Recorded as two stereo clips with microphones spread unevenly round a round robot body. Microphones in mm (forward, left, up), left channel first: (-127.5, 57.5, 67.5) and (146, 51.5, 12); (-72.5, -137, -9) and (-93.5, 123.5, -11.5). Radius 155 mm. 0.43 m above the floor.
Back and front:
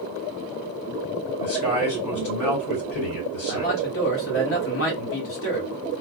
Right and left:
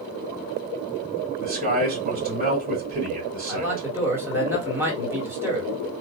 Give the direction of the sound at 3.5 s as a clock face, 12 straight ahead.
6 o'clock.